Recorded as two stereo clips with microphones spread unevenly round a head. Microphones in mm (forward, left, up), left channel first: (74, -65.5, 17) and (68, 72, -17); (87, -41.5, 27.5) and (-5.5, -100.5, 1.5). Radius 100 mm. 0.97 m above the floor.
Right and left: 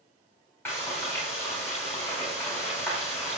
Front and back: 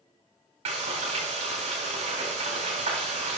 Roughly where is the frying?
Behind.